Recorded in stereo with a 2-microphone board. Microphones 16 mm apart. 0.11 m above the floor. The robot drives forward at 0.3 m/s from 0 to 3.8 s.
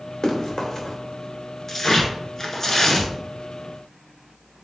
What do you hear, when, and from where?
0.2 s running footsteps: 40° left (ahead or behind), 1.7 m; by 1.0 s 35° left (ahead or behind), 1.9 m
1.7 s tearing paper: 30° left (ahead or behind), 1.0 m